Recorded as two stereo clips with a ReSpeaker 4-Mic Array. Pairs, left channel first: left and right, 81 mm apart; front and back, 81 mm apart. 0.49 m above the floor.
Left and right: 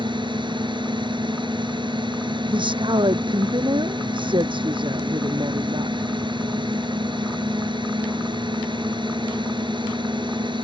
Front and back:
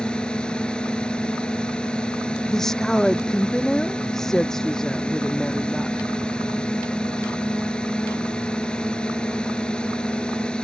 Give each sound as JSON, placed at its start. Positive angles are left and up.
{"t": 0.0, "sound": "a drone", "azimuth_deg": -75}
{"t": 2.5, "sound": "a woman speaking", "azimuth_deg": -85}